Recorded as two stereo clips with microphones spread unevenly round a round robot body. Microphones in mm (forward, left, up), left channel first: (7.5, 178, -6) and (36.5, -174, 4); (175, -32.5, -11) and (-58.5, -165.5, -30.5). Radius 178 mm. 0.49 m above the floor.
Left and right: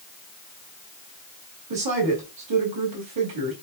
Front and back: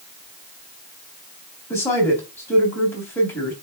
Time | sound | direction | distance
1.7 | a woman speaking | 55° right | 3 m